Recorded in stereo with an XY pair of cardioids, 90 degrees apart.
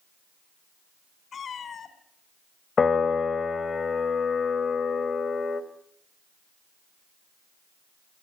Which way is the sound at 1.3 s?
60° left.